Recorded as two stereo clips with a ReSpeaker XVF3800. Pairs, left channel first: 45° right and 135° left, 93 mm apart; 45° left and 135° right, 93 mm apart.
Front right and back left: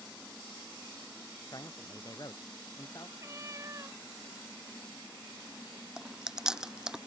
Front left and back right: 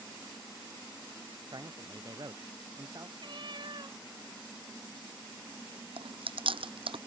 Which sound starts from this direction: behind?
A cat meowing, at 3.2 s.